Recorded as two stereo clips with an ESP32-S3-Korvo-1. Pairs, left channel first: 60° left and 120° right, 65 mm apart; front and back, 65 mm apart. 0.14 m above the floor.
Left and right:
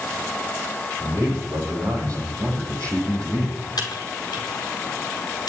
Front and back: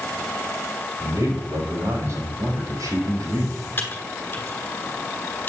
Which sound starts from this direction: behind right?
A man speaking, at 1.0 s.